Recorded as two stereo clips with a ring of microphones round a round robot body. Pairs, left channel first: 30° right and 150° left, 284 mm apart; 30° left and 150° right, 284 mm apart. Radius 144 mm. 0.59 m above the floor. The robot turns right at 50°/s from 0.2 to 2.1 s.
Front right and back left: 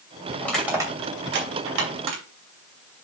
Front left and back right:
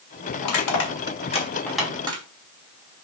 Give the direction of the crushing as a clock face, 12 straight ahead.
10 o'clock.